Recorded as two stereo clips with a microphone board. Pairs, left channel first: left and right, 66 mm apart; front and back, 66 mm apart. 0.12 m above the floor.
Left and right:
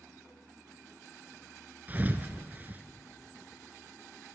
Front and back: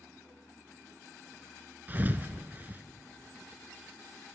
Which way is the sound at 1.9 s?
135° right.